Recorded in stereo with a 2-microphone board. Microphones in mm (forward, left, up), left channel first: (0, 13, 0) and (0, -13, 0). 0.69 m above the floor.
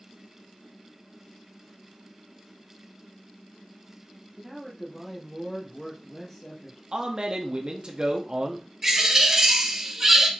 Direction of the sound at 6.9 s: 40° right (ahead or behind).